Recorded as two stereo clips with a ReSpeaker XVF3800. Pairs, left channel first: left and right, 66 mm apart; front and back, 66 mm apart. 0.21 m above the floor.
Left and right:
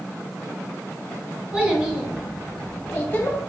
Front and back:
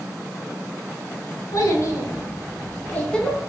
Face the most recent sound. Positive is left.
turn(degrees=85)